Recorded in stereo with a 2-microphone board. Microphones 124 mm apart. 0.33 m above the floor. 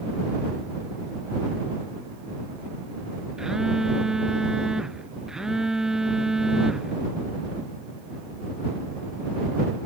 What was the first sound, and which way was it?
A phone buzzing, 5° right (ahead or behind).